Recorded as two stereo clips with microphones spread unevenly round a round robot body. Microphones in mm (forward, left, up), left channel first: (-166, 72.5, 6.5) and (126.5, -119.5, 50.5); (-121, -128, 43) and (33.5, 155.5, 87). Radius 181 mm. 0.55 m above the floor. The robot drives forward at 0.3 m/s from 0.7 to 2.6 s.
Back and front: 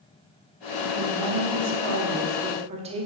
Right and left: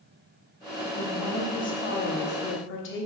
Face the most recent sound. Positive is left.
turn(degrees=-110)